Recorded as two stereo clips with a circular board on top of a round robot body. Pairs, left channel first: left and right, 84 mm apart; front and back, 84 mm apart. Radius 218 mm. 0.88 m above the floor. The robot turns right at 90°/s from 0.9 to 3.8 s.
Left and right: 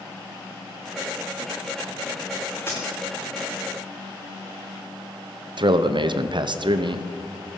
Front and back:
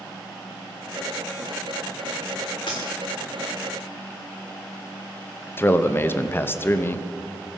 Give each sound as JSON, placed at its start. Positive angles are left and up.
{"t": 2.7, "sound": "a dropped coin", "azimuth_deg": 25, "distance_m": 0.6}
{"t": 5.6, "sound": "a man speaking", "azimuth_deg": -65, "distance_m": 0.9}